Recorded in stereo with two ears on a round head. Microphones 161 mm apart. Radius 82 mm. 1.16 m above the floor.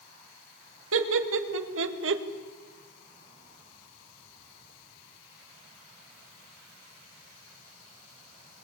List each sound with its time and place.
0.9 s laughter: 80° right, 2.5 m; by 2.2 s 70° right (ahead or behind), 1.7 m